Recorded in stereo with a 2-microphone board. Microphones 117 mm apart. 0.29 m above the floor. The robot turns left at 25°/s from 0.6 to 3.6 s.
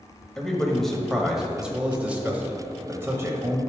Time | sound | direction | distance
0.4 | a man speaking | 5° left (ahead or behind) | 1.0 m